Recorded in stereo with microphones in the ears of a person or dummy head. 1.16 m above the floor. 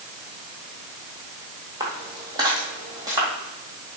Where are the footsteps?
20° right (ahead or behind), 1.6 m.